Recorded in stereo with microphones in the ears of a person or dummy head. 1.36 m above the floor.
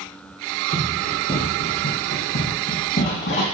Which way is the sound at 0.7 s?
45° left (ahead or behind).